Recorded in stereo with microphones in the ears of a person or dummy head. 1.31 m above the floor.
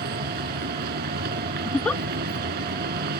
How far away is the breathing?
I don't hear breathing.